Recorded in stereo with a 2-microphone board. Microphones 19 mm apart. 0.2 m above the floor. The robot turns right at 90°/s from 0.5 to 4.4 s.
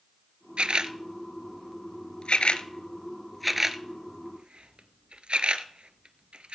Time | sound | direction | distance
0.6 | a camera shutter | 75° right (ahead or behind) | 0.6 m